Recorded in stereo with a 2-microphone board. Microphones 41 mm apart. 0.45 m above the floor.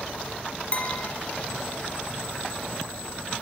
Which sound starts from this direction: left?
A clink, at 0.7 s.